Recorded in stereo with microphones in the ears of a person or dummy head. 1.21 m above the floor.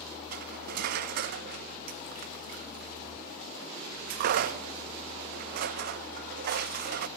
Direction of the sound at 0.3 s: 50° right (ahead or behind).